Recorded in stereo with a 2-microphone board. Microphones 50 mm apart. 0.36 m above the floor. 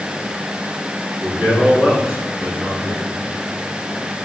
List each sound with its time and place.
1.2 s a man speaking: 15° right (ahead or behind), 5 m; by 3.1 s 30° right (ahead or behind), 4 m